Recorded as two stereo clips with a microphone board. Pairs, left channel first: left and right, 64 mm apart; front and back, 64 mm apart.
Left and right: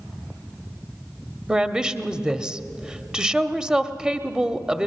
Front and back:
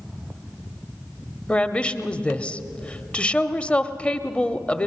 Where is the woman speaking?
35° right, 0.9 m.